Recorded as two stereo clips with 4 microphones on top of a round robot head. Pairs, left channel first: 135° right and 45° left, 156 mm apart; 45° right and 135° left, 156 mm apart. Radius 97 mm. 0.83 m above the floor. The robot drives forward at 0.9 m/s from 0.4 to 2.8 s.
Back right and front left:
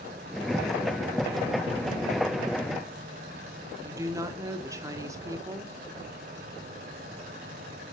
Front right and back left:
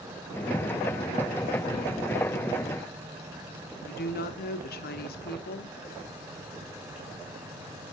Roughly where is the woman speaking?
Ahead right.